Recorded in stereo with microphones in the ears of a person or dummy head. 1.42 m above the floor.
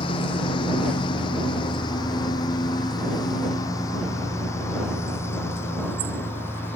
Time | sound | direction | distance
0.0 | a lawn mower | 30° left (ahead or behind) | ?